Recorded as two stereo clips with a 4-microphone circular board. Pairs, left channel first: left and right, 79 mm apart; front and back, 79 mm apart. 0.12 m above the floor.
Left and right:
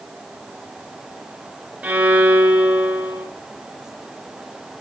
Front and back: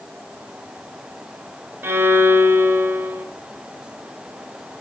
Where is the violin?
150° right, 1.8 m.